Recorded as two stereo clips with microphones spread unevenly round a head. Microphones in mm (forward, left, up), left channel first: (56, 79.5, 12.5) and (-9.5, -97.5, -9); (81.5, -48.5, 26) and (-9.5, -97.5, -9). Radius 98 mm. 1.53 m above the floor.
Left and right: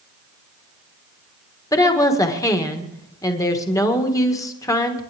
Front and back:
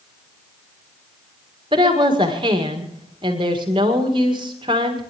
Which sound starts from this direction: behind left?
A woman speaking, at 1.7 s.